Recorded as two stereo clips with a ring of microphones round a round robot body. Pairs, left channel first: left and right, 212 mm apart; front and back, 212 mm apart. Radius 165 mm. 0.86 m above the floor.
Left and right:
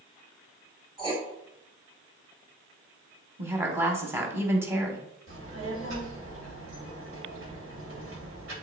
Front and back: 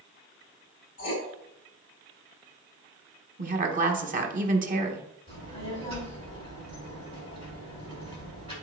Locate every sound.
1.0 s writing: 25° right, 2.5 m
3.4 s a woman speaking: 165° right, 1.1 m
5.3 s a child speaking: 80° right, 3.5 m